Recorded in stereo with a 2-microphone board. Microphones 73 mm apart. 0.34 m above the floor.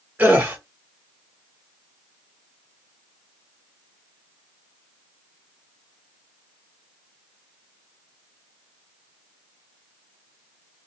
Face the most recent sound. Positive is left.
turn(degrees=-25)  # may be behind; listen again after turning